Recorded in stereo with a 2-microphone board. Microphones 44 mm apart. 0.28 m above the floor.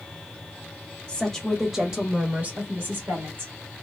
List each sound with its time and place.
1.1 s a woman speaking: 20° left (ahead or behind), 1.0 m; by 3.5 s 55° right (ahead or behind), 1.7 m